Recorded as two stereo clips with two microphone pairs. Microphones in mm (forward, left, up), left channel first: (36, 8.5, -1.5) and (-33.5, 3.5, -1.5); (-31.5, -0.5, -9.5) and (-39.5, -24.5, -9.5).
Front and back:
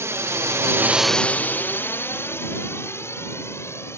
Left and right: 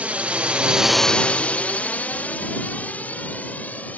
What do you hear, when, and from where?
0.0 s a drone: 130° right; by 4.0 s 55° left